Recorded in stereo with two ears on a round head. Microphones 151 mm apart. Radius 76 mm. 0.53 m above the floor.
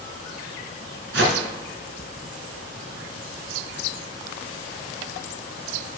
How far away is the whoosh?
About 2.5 m.